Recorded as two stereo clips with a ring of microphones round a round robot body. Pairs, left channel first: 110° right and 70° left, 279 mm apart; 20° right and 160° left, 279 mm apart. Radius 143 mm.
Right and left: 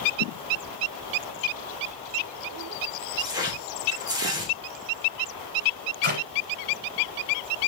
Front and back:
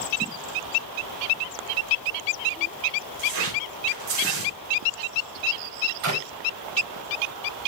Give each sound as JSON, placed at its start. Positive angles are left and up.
{"t": 3.2, "sound": "tearing paper", "azimuth_deg": 145, "distance_m": 3.0}
{"t": 6.0, "sound": "a clap", "azimuth_deg": 125, "distance_m": 4.0}